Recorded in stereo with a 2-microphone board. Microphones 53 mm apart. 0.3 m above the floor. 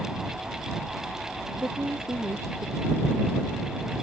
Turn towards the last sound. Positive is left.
turn(degrees=-60)  # may be behind; listen again after turning